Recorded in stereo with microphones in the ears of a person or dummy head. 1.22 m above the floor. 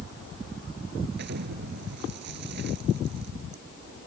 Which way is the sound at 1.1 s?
60° right (ahead or behind).